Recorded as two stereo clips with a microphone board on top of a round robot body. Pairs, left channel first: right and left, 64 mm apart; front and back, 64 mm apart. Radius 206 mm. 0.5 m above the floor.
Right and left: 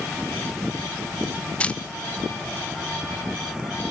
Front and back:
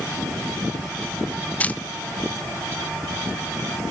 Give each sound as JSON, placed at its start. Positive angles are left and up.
{"t": 1.6, "sound": "a camera shutter", "azimuth_deg": -40, "distance_m": 0.7}